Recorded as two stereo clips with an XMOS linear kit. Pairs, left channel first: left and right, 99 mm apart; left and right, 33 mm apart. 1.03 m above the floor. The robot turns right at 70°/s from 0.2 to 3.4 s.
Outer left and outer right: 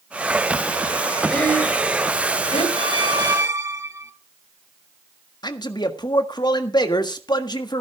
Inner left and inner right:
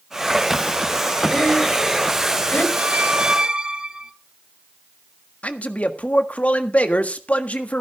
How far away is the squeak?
About 1.0 m.